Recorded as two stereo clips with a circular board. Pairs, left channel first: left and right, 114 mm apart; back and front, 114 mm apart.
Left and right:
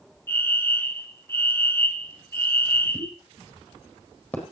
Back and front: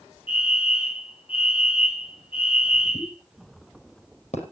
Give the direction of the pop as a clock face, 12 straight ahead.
7 o'clock.